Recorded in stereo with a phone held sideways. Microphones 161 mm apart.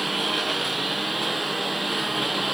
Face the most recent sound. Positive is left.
turn(degrees=0)  # may be behind; listen again after turning